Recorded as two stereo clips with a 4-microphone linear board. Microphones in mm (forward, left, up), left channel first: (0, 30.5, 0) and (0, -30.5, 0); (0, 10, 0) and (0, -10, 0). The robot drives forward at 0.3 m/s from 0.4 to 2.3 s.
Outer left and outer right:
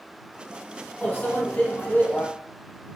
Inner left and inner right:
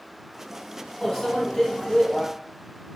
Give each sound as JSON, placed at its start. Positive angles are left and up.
{"t": 1.0, "sound": "a microwave", "side_deg": 30, "distance_m": 1.0}